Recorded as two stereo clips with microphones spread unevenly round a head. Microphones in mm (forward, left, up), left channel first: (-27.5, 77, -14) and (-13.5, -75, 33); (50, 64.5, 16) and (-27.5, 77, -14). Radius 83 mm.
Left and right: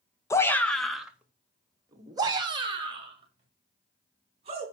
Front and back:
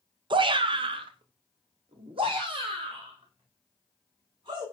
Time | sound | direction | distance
0.3 | a shout | 165° left | 1.8 m